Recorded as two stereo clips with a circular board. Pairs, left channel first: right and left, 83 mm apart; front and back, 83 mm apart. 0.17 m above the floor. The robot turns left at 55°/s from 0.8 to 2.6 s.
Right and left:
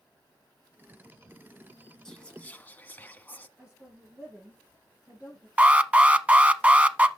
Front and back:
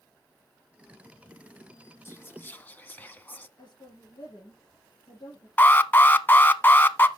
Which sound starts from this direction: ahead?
Whispering, at 2.0 s.